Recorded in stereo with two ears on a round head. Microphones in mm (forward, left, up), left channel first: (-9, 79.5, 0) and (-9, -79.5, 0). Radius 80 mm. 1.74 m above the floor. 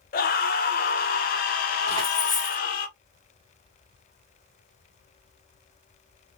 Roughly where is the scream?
Left.